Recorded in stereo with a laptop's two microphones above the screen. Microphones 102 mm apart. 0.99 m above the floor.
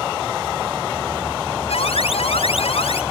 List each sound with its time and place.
1.7 s an alarm: 75° left (ahead or behind)